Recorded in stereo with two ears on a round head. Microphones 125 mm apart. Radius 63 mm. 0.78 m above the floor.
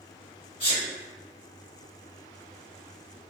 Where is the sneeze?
45° left (ahead or behind), 1.9 m.